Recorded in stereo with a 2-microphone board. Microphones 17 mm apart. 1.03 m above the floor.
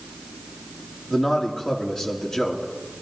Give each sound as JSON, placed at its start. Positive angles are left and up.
{"t": 1.1, "sound": "a man speaking", "side_deg": 30, "distance_m": 1.9}